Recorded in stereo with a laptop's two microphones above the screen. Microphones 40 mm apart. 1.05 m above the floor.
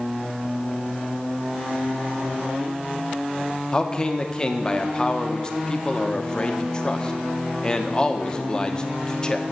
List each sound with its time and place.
3.7 s a man speaking: 20° left (ahead or behind), 0.6 m